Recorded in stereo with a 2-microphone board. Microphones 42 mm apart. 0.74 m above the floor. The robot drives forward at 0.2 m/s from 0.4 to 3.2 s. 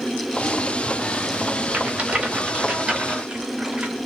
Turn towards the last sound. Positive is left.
turn(degrees=-25)  # may be behind; listen again after turning